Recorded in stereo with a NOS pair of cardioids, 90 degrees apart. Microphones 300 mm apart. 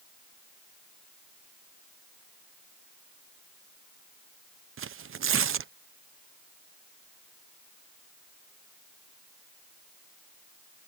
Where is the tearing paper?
45° right.